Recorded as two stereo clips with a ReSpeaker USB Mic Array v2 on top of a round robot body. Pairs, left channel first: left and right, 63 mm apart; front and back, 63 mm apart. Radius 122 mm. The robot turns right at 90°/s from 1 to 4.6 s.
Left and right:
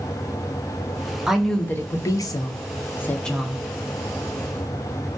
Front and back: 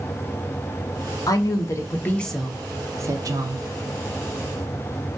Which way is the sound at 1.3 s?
10° right.